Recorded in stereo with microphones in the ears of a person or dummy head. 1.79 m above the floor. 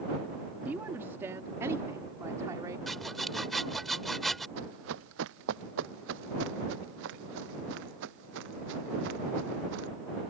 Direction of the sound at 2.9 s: Centre (ahead or behind).